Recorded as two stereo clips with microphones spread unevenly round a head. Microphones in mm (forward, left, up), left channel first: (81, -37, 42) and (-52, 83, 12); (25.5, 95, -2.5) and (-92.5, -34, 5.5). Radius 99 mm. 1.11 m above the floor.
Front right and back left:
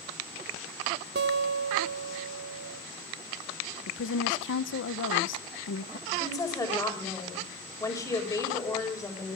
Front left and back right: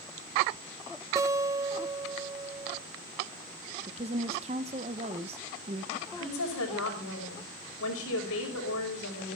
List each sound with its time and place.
1.1 s a guitar: 165° left, 0.8 m
3.9 s a woman speaking: 70° right, 0.7 m
6.1 s a woman speaking: 30° left, 6 m